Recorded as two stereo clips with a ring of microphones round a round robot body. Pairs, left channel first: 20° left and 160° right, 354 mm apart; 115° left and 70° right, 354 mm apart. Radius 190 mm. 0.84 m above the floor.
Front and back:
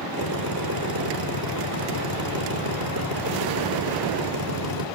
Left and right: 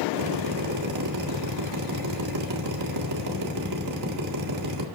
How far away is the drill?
About 3 m.